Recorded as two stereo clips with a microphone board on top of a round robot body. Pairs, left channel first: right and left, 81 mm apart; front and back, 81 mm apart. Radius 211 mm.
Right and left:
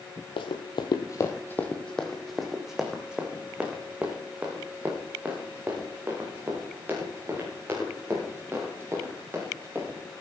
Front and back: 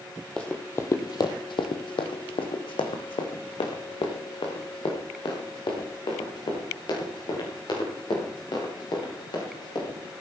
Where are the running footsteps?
80° right, 1.0 m; by 10.0 s 25° left, 7.5 m.